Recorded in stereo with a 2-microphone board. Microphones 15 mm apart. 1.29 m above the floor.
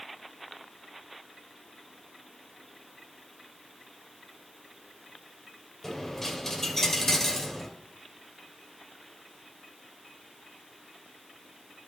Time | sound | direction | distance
5.8 | a dropped coin | 20° left (ahead or behind) | 2.5 m